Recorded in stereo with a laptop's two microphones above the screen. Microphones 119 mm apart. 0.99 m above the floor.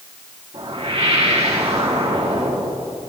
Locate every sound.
0.5 s a whoosh: 70° right (ahead or behind), 3 m